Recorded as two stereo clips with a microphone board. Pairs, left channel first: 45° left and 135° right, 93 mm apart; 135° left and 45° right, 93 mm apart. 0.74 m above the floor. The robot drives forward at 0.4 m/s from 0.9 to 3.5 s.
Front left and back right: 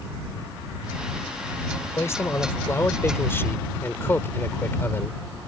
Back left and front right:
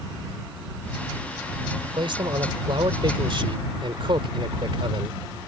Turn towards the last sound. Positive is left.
turn(degrees=-20)